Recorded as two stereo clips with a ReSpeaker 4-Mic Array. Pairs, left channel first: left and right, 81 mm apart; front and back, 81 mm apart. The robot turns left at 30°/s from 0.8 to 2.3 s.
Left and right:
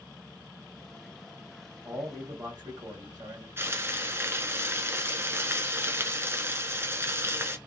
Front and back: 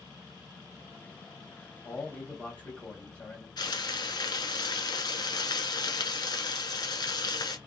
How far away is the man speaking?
About 1.6 m.